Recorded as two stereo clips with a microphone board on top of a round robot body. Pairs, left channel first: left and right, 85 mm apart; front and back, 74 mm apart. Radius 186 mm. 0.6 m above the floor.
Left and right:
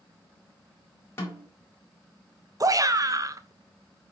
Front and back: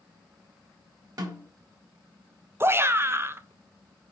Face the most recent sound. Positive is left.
turn(degrees=-130)